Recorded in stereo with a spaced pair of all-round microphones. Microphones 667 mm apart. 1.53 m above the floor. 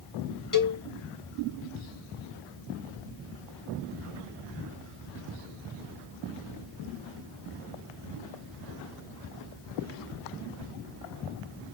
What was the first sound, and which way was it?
A cowbell, 30° left (ahead or behind).